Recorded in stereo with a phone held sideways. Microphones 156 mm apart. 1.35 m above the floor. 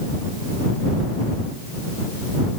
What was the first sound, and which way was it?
Only background noise.